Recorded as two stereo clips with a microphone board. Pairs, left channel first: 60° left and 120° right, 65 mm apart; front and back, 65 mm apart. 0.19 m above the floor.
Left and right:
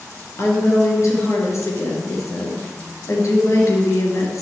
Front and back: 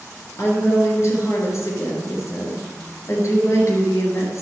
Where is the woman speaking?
30° left, 3.5 m.